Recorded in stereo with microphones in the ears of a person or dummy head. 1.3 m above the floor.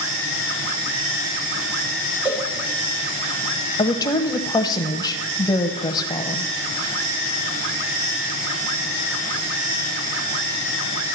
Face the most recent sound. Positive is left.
turn(degrees=20)  # may be behind; listen again after turning